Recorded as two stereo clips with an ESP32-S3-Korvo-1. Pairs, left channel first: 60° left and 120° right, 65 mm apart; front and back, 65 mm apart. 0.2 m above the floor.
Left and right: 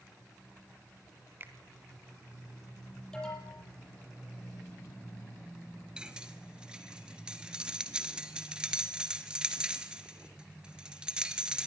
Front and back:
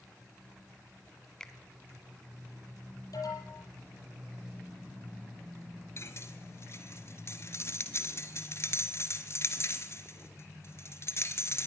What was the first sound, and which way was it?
A finger snap, 80° right.